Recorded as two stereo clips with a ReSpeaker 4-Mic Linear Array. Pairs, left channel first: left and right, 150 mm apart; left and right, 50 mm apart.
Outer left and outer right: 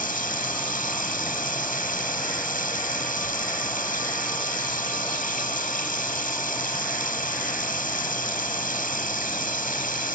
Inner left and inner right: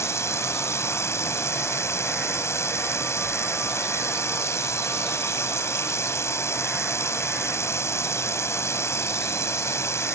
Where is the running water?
75° left (ahead or behind).